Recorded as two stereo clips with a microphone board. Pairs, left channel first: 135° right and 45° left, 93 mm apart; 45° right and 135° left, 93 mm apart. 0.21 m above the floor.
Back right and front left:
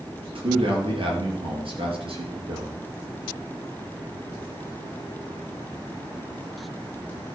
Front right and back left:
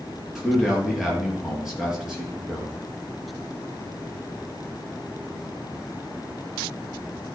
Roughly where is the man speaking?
Ahead left.